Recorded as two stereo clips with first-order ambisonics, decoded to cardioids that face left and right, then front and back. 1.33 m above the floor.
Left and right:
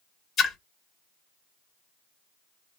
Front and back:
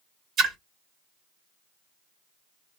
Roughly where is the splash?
Behind left.